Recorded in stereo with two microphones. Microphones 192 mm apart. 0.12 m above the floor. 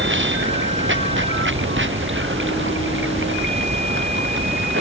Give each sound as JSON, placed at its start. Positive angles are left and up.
{"t": 0.0, "sound": "running water", "side_deg": -80}